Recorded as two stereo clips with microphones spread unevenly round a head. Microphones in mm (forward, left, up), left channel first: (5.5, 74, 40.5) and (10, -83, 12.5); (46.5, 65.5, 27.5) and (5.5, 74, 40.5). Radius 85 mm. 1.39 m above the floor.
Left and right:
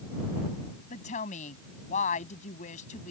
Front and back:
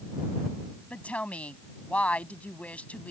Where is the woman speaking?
45° left.